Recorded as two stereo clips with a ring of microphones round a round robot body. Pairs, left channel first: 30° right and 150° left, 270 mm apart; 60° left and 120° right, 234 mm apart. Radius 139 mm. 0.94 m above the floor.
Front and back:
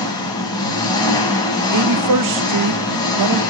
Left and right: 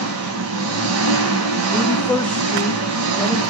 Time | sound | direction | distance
0.0 | an engine running | 105° right | 2 m
1.7 | a woman speaking | 145° left | 0.8 m